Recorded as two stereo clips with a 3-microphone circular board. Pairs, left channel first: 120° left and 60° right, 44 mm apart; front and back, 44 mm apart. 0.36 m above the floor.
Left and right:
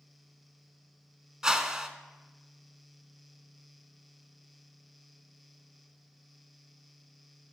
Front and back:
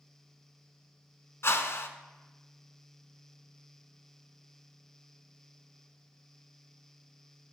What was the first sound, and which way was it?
A whoosh, 15° left.